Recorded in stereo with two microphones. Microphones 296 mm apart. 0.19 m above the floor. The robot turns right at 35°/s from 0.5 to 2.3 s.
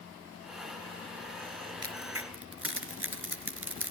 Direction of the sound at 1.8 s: 60° right (ahead or behind).